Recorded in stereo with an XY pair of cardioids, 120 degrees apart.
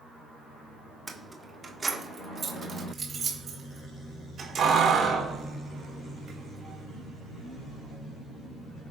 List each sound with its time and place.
1.1 s keys jangling: 15° right, 1.4 m; by 8.0 s 55° right, 4.5 m